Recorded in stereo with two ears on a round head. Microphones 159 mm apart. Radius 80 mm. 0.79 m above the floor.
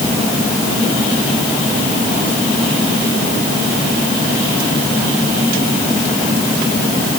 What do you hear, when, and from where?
Only background noise.